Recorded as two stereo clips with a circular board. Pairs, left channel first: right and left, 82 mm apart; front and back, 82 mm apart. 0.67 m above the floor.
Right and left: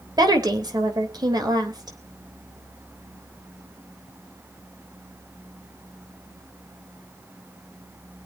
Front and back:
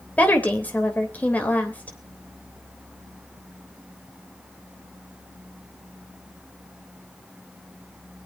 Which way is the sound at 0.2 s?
70° left.